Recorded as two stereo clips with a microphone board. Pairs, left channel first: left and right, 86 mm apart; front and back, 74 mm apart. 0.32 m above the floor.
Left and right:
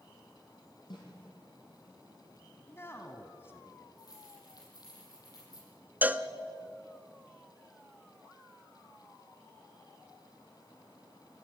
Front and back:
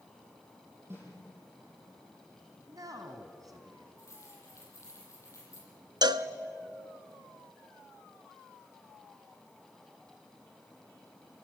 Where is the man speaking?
150° left, 2 m.